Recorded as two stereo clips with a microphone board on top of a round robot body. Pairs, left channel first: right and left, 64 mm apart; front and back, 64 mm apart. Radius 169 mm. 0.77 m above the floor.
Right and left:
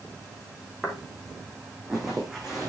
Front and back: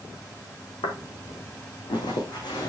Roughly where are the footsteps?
Ahead.